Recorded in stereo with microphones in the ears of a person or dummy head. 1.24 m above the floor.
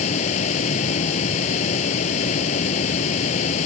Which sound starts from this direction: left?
A fan, at 0.0 s.